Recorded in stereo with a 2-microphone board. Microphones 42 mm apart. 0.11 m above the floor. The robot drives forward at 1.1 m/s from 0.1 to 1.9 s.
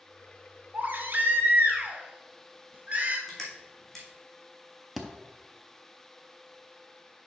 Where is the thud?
Centre (ahead or behind), 0.8 m.